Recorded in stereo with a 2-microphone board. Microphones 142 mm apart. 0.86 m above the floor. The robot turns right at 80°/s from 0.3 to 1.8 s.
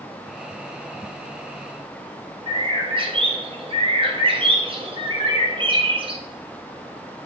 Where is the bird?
40° right (ahead or behind), 0.7 m.